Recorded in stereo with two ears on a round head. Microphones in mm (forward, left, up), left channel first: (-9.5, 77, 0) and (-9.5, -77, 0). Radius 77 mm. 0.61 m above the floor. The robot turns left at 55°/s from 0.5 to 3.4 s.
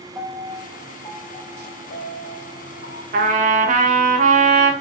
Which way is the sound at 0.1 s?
165° right.